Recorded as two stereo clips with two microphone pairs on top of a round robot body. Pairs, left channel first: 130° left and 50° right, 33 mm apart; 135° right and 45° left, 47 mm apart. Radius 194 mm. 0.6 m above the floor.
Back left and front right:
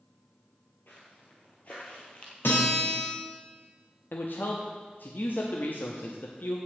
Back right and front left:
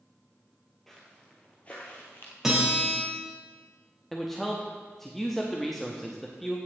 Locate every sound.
0.9 s footsteps: 145° left, 1.1 m; by 2.3 s 170° right, 1.2 m
2.4 s a guitar: 125° left, 3.5 m
4.1 s a man speaking: 135° left, 1.1 m